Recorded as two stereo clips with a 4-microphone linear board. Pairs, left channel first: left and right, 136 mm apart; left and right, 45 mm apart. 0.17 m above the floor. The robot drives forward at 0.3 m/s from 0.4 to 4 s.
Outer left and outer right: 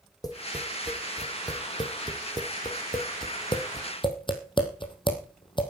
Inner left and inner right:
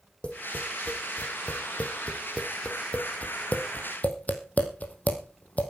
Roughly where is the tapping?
Left.